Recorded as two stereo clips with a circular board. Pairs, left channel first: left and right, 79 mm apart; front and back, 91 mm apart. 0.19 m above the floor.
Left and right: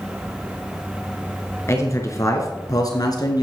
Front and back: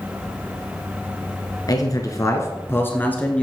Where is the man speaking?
40° left, 2 m; by 3.4 s 75° left, 2 m.